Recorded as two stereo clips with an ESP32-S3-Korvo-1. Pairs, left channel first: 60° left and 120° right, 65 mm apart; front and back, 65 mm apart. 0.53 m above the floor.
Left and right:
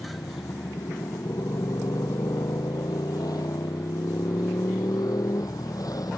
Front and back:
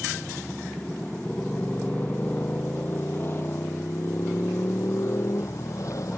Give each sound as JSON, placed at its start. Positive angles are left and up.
{"t": 0.0, "sound": "a motorcycle", "azimuth_deg": 75}